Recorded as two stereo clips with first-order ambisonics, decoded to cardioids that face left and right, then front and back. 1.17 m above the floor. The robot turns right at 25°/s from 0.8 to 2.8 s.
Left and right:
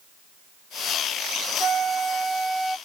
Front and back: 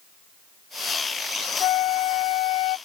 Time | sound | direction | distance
1.6 | a flute | 30° right | ?